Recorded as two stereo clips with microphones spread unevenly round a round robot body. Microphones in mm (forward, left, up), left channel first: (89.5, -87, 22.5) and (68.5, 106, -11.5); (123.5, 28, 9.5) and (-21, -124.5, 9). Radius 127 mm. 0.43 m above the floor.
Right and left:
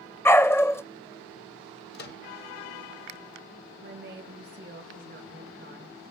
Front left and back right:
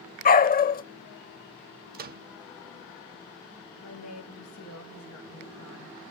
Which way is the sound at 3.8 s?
65° left.